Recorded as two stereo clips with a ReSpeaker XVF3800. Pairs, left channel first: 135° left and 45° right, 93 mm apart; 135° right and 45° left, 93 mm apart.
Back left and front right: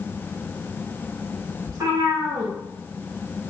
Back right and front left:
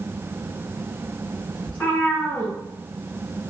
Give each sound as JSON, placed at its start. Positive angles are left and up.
{"t": 1.7, "sound": "a cat meowing", "azimuth_deg": -70, "distance_m": 1.6}